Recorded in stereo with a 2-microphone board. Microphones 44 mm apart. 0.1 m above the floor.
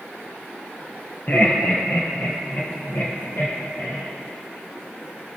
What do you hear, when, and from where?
1.3 s laughter: 40° left (ahead or behind), 3 m; by 4.0 s 60° left (ahead or behind), 4.5 m